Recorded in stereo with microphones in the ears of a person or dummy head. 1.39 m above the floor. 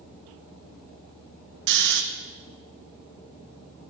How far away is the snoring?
About 0.5 m.